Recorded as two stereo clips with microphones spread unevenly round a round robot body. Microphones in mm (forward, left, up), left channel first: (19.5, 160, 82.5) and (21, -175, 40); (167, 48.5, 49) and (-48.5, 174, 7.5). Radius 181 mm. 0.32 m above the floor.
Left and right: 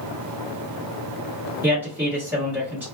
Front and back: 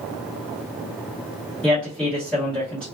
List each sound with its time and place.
1.6 s a man speaking: 135° right, 1.5 m